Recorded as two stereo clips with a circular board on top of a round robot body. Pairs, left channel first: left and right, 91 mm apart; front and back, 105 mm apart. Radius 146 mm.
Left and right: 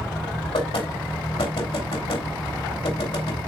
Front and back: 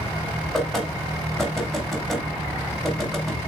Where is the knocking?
90° left, 2.5 m.